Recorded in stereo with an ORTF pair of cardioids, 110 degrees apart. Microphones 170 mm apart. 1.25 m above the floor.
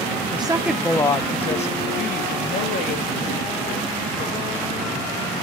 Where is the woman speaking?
30° right, 0.8 m; by 5.1 s 65° left, 4.5 m.